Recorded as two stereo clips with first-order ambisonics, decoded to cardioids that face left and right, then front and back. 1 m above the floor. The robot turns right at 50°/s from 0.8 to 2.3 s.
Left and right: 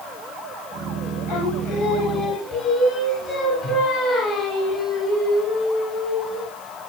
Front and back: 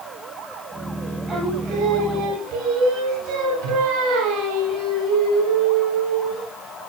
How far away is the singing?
About 7 m.